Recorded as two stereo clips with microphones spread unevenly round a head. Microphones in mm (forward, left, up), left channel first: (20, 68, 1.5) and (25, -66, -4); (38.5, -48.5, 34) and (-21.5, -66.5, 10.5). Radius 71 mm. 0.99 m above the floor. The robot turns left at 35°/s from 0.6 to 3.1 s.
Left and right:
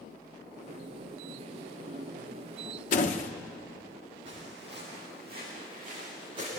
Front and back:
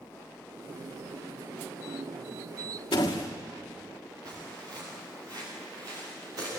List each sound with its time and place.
2.9 s a door slam: 65° left, 1.6 m; by 3.3 s 60° left, 1.6 m
4.2 s footsteps: 145° right, 9.5 m